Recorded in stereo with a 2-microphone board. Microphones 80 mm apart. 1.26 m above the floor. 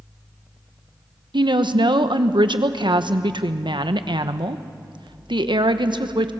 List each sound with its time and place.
1.3 s a woman speaking: 75° right (ahead or behind), 1.0 m